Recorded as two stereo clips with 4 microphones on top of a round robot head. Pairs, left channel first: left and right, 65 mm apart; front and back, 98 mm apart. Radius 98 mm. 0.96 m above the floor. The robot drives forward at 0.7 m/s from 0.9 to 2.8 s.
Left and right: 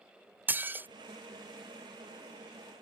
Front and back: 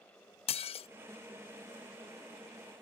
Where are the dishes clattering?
25° right.